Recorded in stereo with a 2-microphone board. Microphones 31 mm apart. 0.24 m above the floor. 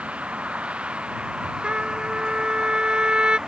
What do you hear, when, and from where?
0.0 s a vehicle: 45° right (ahead or behind); by 3.5 s 20° right (ahead or behind)
1.6 s a trumpet: 35° right (ahead or behind)